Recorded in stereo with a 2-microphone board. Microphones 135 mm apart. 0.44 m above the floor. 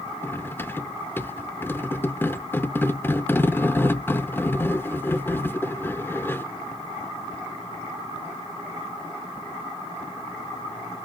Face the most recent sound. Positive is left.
turn(degrees=15)  # may be behind; listen again after turning